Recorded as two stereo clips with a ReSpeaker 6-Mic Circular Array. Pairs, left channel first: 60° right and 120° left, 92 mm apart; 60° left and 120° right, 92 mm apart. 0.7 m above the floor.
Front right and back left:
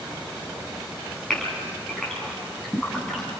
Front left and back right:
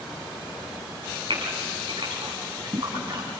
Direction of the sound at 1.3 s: 145° right.